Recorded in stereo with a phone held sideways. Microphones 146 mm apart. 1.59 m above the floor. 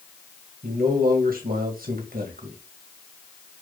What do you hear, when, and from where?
0.6 s a man speaking: 75° right (ahead or behind), 2 m